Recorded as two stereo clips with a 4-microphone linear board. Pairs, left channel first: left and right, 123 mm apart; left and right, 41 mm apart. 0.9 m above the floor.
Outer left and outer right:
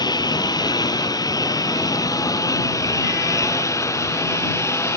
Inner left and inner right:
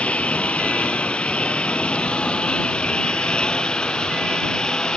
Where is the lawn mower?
30° left (ahead or behind); by 5.0 s 20° left (ahead or behind).